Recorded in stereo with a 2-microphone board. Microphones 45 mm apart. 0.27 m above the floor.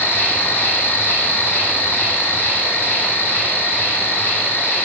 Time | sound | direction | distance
0.0 | an insect | 45° left (ahead or behind) | 5 m